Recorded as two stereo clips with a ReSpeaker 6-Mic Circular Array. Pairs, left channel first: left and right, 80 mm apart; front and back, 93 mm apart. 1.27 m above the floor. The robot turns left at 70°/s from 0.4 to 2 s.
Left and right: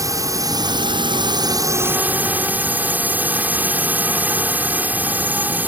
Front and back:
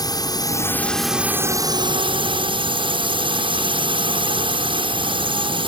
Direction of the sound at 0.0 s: 45° right.